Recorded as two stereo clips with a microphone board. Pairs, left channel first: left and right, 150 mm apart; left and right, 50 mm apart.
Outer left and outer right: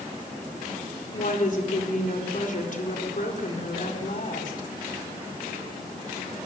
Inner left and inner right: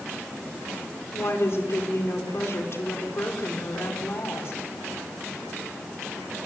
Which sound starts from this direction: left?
A woman speaking, at 1.1 s.